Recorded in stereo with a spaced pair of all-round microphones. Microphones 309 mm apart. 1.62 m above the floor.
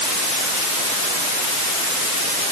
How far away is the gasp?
I don't hear a gasp.